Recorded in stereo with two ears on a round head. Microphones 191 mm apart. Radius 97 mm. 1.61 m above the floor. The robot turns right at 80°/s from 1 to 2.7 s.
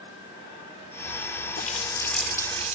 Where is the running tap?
130° left; by 2.8 s 140° right.